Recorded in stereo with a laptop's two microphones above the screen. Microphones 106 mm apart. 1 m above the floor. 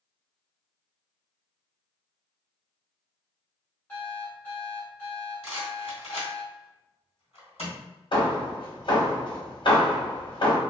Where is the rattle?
70° left (ahead or behind), 1.6 m.